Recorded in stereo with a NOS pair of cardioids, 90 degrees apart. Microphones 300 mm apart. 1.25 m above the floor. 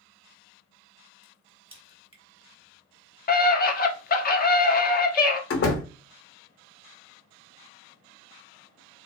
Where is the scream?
30° left, 0.5 m.